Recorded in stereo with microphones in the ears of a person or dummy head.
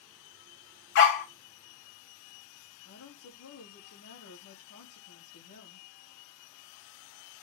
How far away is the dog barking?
About 1.6 m.